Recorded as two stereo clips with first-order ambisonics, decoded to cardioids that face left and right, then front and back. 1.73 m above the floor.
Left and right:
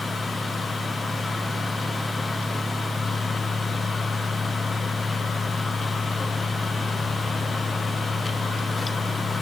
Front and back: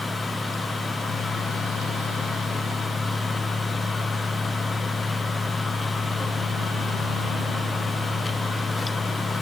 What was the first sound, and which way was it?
Only background noise.